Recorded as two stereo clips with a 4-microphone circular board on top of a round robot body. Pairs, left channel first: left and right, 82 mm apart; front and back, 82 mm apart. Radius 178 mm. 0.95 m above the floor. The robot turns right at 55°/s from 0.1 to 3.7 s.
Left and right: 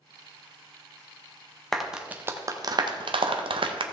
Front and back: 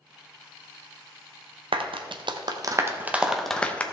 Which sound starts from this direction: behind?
A clap, at 1.7 s.